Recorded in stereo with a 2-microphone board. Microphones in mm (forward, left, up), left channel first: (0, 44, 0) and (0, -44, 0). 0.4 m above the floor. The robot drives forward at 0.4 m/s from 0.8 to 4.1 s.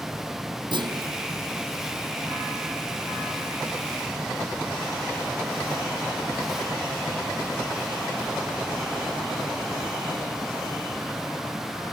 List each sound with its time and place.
0.7 s a clunk: 70° right (ahead or behind)